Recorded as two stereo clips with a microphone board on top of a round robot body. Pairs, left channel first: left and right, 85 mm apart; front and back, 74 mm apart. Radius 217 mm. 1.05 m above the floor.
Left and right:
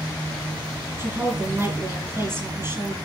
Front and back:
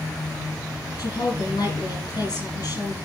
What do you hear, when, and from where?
1.0 s a woman speaking: 30° right, 7 m